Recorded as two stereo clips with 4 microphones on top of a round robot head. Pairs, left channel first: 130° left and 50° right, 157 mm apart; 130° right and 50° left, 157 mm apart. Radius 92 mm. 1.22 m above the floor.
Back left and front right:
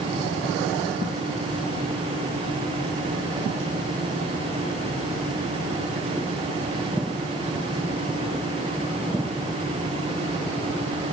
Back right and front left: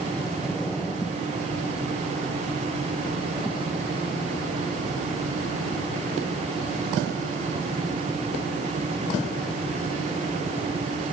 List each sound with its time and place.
Only background noise.